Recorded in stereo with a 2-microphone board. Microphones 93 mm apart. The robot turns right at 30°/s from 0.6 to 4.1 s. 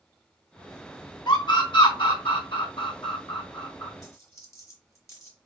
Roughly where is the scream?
Left.